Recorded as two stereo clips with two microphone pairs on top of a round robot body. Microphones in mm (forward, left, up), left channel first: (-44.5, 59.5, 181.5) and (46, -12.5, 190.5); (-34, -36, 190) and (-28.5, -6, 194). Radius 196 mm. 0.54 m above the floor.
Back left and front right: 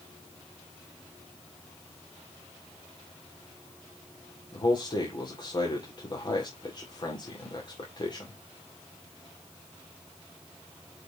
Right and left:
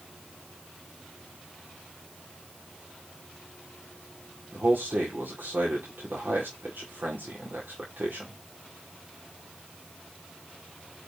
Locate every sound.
4.5 s a man speaking: 95° left, 2.5 m